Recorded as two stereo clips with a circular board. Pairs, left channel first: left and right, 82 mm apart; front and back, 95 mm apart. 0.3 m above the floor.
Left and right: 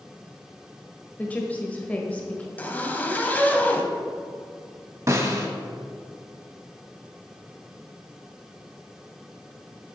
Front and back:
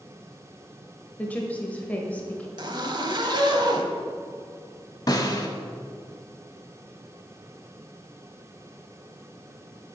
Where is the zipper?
155° left, 0.7 m.